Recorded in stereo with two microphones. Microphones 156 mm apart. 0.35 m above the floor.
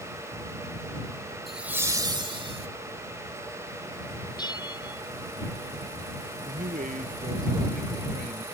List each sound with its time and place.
1.5 s laughter: centre (ahead or behind); by 2.7 s 40° right (ahead or behind)
4.4 s a bell: 25° left (ahead or behind)
6.5 s a man speaking: 55° right (ahead or behind)